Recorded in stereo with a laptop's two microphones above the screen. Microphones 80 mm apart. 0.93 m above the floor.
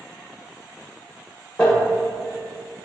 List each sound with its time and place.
1.6 s crumpling: 10° left (ahead or behind), 0.8 m